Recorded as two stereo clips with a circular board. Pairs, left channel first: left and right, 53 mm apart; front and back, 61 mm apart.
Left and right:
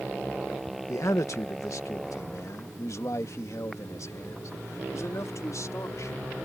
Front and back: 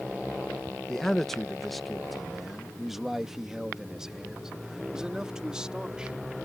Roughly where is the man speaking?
Left.